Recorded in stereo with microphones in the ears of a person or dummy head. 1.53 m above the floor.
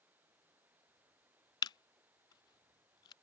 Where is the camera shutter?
25° left (ahead or behind).